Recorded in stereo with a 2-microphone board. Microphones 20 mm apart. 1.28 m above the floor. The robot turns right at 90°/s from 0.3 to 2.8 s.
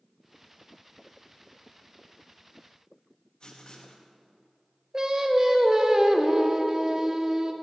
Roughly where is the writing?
Left.